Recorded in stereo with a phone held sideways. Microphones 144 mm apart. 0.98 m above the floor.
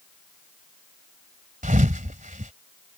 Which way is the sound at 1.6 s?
65° right (ahead or behind).